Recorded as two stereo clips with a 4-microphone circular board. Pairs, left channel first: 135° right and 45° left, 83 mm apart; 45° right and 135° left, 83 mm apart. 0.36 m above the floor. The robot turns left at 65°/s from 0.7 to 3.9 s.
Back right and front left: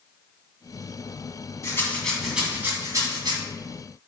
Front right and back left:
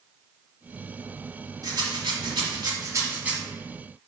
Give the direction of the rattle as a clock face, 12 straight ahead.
6 o'clock.